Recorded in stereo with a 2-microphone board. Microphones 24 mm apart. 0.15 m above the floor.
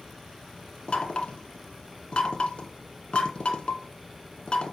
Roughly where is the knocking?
Left.